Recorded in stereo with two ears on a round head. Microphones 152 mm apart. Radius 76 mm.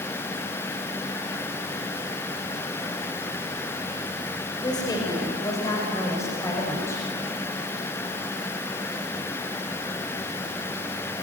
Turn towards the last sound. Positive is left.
turn(degrees=15)  # may be behind; listen again after turning